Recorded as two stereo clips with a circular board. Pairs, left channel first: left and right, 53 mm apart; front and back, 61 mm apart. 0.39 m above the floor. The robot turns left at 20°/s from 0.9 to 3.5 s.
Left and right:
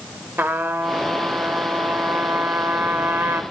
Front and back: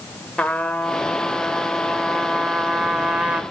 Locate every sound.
0.4 s a trumpet: 65° right, 0.7 m; by 3.4 s 115° right, 0.7 m